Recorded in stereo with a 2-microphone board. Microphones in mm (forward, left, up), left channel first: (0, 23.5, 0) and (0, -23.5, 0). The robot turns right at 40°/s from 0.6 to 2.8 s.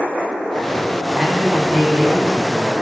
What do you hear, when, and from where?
1.1 s a man speaking: 5° left, 1.2 m; by 2.7 s 70° left, 1.2 m